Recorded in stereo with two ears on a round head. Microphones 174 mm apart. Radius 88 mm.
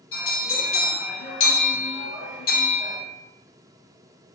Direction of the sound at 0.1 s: 70° left (ahead or behind).